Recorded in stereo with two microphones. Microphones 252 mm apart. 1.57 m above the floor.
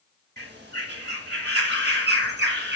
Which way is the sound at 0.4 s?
40° right (ahead or behind).